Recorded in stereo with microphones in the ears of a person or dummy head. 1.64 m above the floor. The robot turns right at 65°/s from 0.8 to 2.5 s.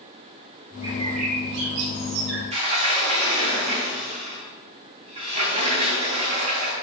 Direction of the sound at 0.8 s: 165° right.